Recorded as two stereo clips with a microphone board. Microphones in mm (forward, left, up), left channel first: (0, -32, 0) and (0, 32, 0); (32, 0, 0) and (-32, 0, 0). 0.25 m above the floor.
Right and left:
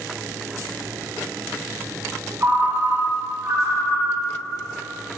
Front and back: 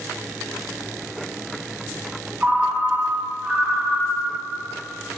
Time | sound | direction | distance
2.4 | a ringtone | 120° left | 0.8 m